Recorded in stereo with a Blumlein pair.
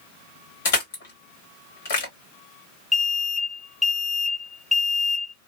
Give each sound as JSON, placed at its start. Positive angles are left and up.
{"t": 0.7, "sound": "crushing", "azimuth_deg": 55, "distance_m": 1.8}
{"t": 2.9, "sound": "an alarm", "azimuth_deg": 5, "distance_m": 0.7}